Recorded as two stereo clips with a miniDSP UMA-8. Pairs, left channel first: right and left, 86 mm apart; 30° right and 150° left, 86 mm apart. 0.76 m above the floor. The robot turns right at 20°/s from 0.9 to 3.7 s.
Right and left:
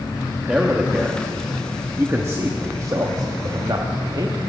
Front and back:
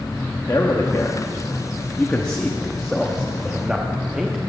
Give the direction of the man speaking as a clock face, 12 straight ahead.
11 o'clock.